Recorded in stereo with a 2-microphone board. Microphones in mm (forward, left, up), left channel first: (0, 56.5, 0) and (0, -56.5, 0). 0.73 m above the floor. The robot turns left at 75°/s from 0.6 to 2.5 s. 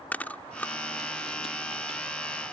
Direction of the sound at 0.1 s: 15° left (ahead or behind).